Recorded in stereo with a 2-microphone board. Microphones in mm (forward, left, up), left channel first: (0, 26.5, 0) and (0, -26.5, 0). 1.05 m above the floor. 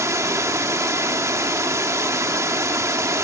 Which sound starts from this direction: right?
Running water, at 0.0 s.